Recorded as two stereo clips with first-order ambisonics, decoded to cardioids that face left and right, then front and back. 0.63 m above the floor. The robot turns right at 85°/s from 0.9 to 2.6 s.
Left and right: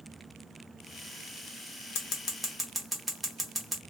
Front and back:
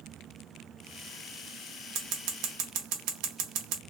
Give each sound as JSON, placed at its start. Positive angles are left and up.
{"t": 1.9, "sound": "scissors", "azimuth_deg": 130, "distance_m": 1.0}